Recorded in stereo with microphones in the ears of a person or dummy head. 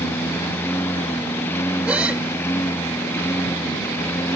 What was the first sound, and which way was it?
A lawn mower, 15° left (ahead or behind).